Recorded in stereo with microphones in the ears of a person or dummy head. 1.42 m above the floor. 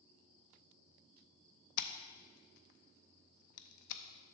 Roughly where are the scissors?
Left.